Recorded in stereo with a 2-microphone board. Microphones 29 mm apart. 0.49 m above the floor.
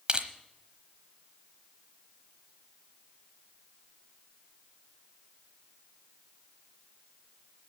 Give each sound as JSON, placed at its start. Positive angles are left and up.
{"t": 0.1, "sound": "crushing", "side_deg": -35, "distance_m": 1.0}